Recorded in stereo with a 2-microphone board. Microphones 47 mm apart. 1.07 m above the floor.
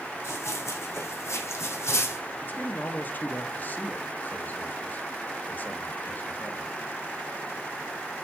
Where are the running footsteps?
80° left, 5 m; by 2.2 s 70° left (ahead or behind), 3.5 m.